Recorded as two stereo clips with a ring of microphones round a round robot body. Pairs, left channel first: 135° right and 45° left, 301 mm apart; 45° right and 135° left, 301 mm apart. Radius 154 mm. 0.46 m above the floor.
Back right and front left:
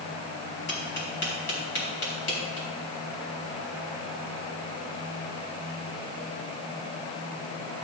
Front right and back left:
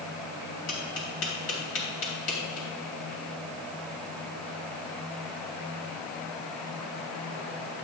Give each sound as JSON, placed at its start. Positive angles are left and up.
{"t": 0.7, "sound": "tapping", "azimuth_deg": -85, "distance_m": 3.5}